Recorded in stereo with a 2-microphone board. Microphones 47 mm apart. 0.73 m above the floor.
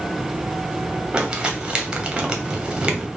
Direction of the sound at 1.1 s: 15° right (ahead or behind).